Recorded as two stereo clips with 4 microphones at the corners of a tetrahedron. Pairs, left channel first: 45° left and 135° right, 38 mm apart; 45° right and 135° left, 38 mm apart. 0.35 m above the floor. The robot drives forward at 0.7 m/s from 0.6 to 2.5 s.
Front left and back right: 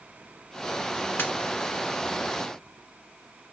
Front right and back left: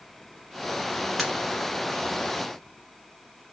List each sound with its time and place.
1.2 s a pop: 50° left, 1.6 m; by 1.3 s 55° left, 1.5 m